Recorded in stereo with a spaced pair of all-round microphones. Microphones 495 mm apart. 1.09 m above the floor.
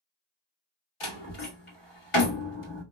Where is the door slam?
85° left, 1.6 m.